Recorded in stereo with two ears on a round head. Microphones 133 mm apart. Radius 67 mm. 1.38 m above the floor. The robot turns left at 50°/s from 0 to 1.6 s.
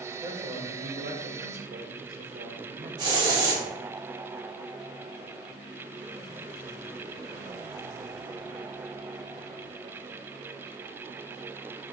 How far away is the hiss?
About 1.2 m.